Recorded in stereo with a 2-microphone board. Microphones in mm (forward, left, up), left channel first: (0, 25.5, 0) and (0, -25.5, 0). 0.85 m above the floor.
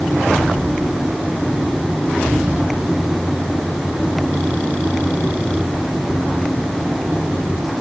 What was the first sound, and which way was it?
Only background noise.